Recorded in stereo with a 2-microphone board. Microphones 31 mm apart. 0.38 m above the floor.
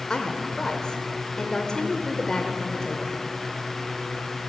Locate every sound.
0.1 s a woman speaking: 30° left (ahead or behind), 1.0 m